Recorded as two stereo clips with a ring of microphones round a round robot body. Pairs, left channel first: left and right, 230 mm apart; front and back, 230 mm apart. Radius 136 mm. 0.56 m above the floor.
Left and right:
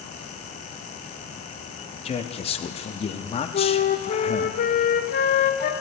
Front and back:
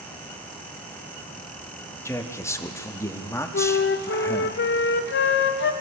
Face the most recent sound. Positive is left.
turn(degrees=40)